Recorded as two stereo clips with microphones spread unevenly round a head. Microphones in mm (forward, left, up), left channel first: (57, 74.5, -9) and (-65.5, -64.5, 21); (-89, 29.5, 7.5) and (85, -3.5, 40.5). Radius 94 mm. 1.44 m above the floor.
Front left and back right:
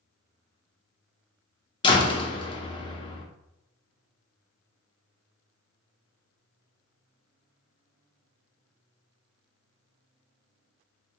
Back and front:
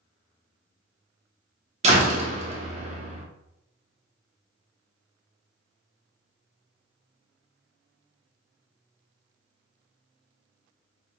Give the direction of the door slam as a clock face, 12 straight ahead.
1 o'clock.